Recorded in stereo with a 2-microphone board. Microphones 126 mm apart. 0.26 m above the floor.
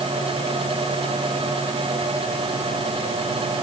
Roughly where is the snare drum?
I don't hear a snare drum.